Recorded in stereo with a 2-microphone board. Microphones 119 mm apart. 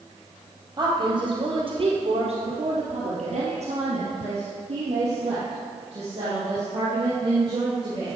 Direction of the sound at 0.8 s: 35° right (ahead or behind).